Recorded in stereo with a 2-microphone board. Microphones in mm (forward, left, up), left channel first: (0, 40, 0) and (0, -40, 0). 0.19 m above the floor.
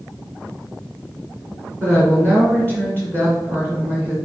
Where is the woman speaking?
25° right (ahead or behind), 2.5 m.